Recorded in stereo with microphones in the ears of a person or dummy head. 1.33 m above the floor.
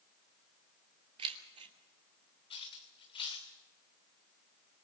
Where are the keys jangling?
30° right (ahead or behind), 2.5 m.